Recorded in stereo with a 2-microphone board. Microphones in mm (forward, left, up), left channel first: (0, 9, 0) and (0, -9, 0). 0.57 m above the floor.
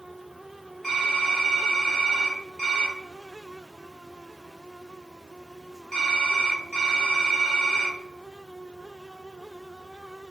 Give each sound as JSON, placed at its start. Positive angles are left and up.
{"t": 0.8, "sound": "typing on a keyboard", "side_deg": -10, "distance_m": 1.3}